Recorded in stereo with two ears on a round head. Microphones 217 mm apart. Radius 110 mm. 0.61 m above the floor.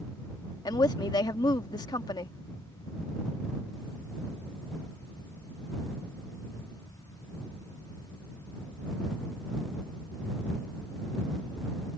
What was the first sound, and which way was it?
A woman speaking, 15° left (ahead or behind).